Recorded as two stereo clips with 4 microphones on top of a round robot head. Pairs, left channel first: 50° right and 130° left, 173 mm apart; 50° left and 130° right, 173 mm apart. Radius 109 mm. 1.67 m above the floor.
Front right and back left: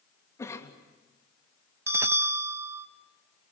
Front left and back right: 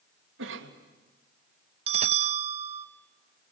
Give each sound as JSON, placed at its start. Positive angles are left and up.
{"t": 0.4, "sound": "a cough", "azimuth_deg": -125, "distance_m": 3.0}
{"t": 1.9, "sound": "a bell", "azimuth_deg": -160, "distance_m": 0.8}